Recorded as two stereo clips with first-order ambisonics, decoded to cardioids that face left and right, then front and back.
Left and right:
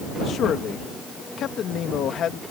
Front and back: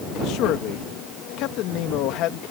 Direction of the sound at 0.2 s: 35° left.